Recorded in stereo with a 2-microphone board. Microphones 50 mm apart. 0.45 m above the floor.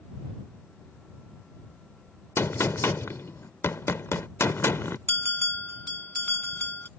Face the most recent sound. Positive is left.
turn(degrees=45)  # may be behind; listen again after turning